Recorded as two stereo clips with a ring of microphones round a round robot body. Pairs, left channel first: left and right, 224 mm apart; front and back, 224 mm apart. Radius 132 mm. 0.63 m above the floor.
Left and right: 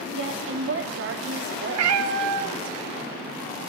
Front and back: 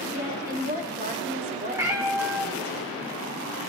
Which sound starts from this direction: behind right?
A woman speaking, at 0.1 s.